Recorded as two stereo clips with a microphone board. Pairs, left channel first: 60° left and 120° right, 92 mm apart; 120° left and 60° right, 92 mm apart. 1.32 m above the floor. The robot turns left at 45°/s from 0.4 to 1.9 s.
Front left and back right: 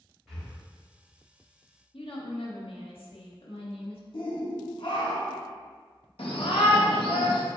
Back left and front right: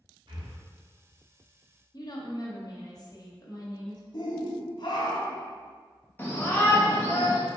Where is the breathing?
30° right, 1.7 m; by 0.5 s 40° right, 1.7 m.